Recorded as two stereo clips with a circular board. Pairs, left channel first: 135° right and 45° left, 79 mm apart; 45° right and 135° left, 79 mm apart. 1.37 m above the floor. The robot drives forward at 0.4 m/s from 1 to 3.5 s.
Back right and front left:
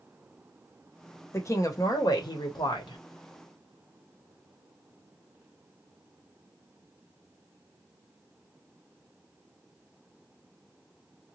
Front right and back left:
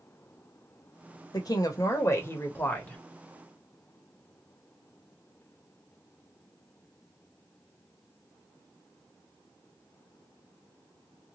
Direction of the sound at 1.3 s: 80° right.